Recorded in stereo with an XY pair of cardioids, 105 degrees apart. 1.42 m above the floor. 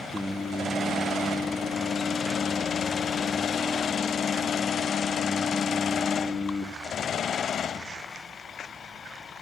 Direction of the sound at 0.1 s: 5° right.